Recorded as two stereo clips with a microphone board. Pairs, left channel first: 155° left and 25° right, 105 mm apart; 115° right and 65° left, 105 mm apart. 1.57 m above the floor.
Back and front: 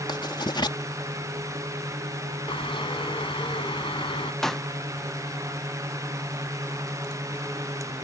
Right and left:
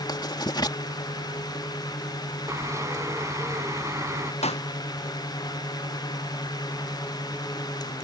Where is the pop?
120° right.